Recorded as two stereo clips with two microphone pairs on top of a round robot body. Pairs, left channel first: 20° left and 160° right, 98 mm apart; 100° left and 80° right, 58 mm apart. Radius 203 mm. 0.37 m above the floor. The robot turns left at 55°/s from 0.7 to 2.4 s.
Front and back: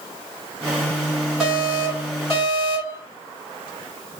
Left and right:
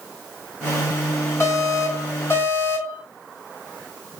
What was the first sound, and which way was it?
An alarm, 110° left.